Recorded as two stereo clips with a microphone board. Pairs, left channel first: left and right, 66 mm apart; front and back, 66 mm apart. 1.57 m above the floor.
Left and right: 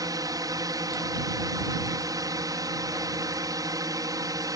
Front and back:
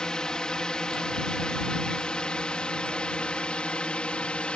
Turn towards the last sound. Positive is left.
turn(degrees=-75)